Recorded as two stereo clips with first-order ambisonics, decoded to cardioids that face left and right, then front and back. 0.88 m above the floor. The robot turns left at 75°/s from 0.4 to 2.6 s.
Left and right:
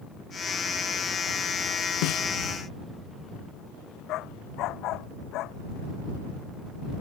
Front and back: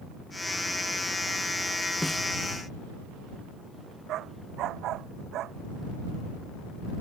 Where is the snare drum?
90° left; by 2.2 s 70° left.